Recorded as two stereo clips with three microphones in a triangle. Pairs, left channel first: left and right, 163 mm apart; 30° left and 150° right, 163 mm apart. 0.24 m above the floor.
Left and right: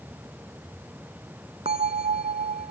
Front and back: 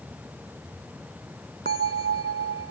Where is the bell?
140° right.